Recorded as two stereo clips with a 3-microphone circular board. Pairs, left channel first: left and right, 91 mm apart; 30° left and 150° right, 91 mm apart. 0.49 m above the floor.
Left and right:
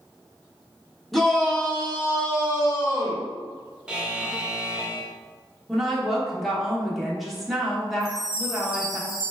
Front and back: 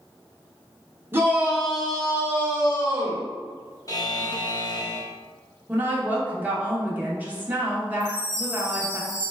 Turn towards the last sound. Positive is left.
turn(degrees=105)